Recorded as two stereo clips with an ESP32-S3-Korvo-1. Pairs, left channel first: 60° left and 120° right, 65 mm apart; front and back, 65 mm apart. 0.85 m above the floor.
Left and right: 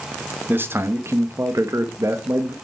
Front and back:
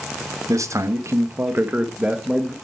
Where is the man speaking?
170° right, 1.4 m; by 2.5 s 100° right, 1.3 m.